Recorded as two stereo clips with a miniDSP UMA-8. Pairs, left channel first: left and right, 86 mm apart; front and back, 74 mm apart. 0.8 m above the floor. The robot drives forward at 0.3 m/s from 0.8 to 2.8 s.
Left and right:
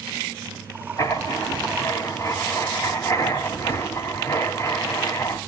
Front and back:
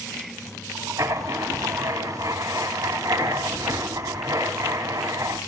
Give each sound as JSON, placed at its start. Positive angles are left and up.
{"t": 1.0, "sound": "writing", "azimuth_deg": 135, "distance_m": 3.5}